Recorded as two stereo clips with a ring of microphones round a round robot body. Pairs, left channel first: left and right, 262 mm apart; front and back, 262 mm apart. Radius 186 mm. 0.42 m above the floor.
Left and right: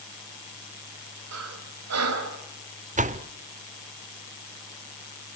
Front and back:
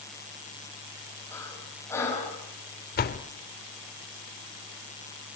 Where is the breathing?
80° right, 3 m.